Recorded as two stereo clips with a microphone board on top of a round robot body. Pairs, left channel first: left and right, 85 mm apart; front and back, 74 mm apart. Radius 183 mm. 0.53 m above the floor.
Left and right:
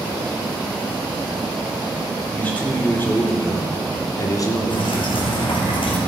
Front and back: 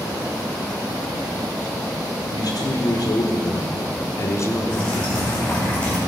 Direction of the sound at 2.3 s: 15° left.